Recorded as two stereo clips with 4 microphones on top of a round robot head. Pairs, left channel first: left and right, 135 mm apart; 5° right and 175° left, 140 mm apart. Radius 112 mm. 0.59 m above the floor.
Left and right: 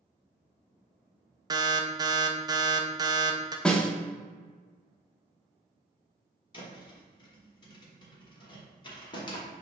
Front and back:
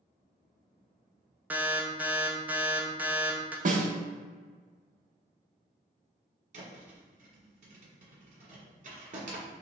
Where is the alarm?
120° right, 0.6 m.